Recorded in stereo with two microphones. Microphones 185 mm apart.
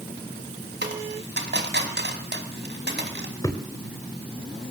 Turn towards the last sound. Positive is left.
turn(degrees=20)  # may be behind; listen again after turning